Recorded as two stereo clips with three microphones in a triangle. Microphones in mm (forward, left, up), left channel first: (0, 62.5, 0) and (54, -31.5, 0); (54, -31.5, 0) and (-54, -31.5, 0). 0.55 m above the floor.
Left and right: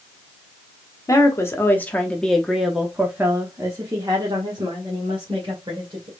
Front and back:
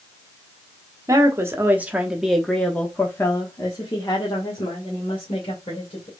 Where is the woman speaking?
150° left, 1.2 m; by 6.1 s 25° right, 2.5 m.